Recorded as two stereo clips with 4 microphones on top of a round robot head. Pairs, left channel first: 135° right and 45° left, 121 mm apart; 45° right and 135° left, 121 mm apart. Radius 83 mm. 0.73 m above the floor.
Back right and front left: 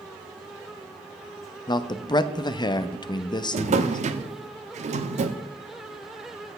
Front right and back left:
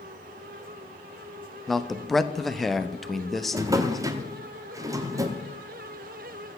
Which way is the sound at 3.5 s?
75° left.